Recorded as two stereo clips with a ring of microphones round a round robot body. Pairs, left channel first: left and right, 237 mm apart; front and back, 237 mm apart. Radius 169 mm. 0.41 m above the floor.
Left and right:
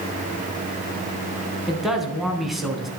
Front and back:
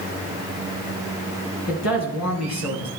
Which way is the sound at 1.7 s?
Straight ahead.